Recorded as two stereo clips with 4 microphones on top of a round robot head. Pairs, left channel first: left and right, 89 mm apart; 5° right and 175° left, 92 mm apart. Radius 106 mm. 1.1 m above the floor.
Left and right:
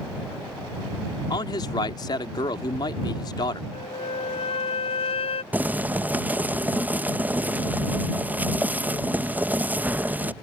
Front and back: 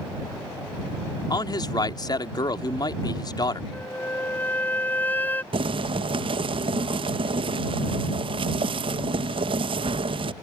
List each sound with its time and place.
1.3 s a man speaking: 40° left
3.7 s a flute: 65° left
5.5 s boiling: 160° right